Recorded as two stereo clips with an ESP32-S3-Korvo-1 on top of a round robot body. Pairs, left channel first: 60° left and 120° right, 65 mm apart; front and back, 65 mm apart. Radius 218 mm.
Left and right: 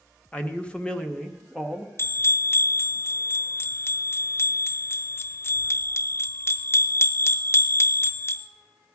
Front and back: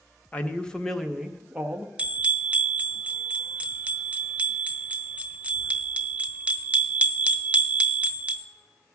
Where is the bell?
115° left, 0.6 m.